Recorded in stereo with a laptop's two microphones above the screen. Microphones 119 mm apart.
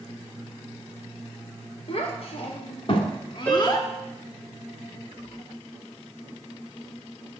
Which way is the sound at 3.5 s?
15° left (ahead or behind).